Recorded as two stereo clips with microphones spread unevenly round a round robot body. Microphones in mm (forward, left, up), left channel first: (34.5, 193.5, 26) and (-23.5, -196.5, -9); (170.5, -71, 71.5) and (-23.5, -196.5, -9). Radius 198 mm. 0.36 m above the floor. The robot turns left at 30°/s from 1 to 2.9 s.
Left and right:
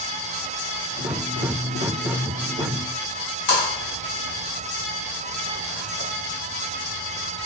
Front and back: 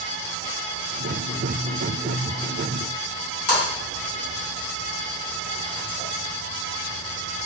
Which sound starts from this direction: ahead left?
A splash, at 3.5 s.